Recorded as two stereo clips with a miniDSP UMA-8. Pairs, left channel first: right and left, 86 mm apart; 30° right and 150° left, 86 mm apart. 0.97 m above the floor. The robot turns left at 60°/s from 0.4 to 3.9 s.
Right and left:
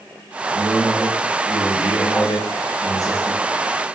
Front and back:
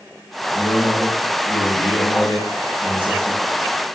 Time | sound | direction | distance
0.5 | a man speaking | 15° left | 1.2 m